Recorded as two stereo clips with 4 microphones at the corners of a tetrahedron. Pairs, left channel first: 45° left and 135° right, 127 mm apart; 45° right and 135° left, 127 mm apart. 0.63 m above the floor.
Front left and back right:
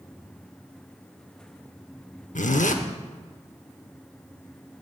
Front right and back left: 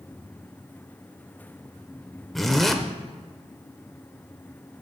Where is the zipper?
45° left, 0.7 m.